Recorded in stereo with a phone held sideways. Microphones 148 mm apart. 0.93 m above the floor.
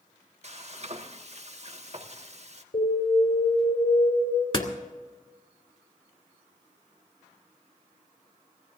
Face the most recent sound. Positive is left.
turn(degrees=40)  # may be behind; listen again after turning